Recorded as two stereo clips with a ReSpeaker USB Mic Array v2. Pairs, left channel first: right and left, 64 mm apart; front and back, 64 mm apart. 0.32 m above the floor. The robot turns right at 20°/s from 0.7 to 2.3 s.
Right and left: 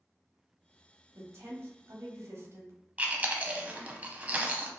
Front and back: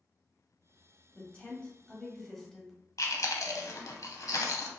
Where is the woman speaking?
60° left, 1.3 m; by 2.7 s 85° left, 1.3 m.